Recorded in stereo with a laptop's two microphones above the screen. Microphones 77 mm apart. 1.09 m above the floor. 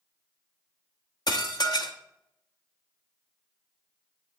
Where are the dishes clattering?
65° left (ahead or behind), 1.0 m.